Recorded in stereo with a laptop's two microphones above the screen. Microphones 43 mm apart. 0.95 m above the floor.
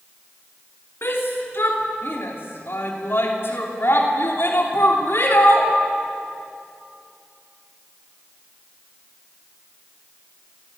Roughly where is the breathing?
No breathing in this recording.